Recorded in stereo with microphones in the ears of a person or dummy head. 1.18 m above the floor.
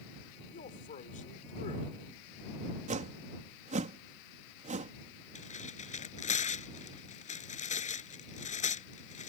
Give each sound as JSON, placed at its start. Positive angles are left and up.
{"t": 0.5, "sound": "a man speaking", "side_deg": 40}
{"t": 2.9, "sound": "a whoosh", "side_deg": -40}
{"t": 5.3, "sound": "tearing paper", "side_deg": 40}